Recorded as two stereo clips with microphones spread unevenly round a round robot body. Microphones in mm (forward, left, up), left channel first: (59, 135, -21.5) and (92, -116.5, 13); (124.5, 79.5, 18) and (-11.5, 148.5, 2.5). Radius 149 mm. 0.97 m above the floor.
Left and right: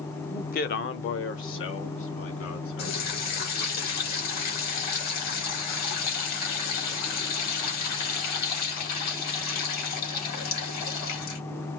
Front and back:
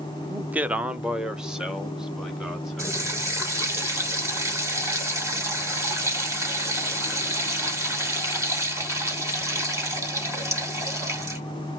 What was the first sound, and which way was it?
A man speaking, 105° left.